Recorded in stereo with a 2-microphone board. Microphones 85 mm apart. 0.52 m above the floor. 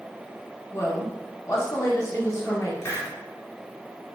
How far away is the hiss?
About 0.7 m.